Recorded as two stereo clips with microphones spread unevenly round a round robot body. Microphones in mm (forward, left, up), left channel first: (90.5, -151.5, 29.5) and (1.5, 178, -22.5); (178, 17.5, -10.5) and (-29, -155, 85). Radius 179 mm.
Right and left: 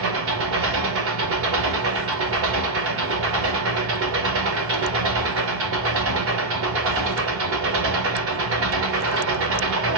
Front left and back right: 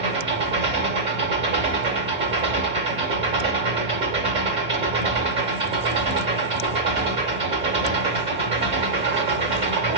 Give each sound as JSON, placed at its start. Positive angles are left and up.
{"t": 0.0, "sound": "an engine running", "azimuth_deg": 135, "distance_m": 1.0}